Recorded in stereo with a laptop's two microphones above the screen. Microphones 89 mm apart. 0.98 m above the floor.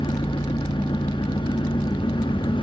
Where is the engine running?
70° left (ahead or behind), 0.8 m.